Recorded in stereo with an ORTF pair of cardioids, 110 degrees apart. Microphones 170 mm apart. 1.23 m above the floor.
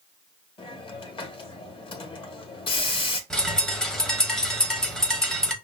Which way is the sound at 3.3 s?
5° left.